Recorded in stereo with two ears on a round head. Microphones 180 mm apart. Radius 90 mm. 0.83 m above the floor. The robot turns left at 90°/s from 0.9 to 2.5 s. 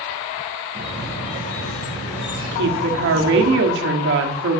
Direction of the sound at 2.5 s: 60° right (ahead or behind).